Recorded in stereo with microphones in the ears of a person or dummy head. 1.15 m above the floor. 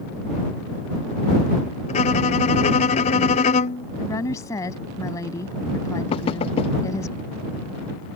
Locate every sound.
1.9 s a violin: 40° left (ahead or behind)
4.0 s a woman speaking: 20° left (ahead or behind)
6.1 s knocking: 35° left (ahead or behind)